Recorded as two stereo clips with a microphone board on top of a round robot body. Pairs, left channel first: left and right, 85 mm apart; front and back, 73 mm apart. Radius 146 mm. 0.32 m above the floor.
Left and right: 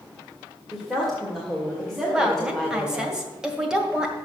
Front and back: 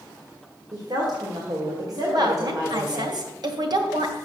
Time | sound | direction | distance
0.7 | a woman speaking | 175° left | 2 m
2.1 | a woman speaking | 170° right | 2.0 m